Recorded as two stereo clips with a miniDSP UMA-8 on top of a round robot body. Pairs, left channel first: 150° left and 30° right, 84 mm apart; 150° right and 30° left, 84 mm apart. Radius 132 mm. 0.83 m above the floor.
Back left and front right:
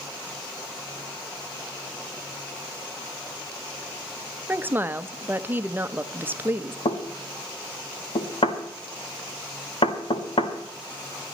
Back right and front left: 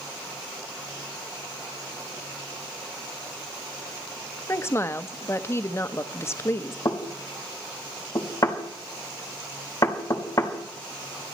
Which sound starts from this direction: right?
A woman speaking, at 4.5 s.